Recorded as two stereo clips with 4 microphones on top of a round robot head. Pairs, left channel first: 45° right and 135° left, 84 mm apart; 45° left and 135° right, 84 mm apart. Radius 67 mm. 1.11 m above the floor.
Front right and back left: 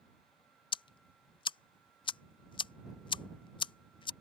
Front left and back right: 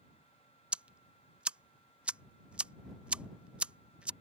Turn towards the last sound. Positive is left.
turn(degrees=-60)